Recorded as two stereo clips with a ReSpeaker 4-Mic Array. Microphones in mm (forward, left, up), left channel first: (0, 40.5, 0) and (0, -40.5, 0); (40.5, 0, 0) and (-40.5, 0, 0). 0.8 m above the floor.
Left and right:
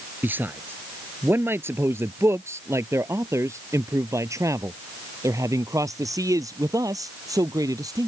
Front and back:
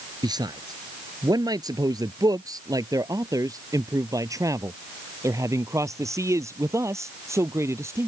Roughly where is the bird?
I don't hear a bird.